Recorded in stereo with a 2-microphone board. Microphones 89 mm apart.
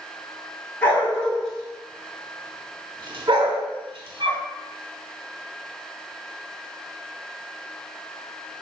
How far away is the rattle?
I don't hear a rattle.